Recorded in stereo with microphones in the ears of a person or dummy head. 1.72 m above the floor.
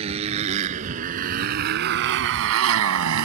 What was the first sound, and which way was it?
A motorcycle, 35° right (ahead or behind).